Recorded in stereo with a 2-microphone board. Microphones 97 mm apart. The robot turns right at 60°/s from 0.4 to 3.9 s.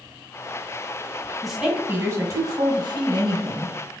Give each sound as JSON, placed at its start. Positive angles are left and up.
{"t": 1.4, "sound": "a woman speaking", "azimuth_deg": 180, "distance_m": 2.0}